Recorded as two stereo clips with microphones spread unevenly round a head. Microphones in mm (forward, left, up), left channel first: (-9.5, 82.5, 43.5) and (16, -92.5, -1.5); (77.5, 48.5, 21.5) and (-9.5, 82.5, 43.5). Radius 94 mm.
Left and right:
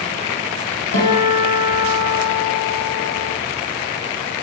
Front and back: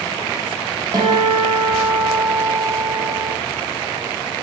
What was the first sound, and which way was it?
A guitar, 110° left.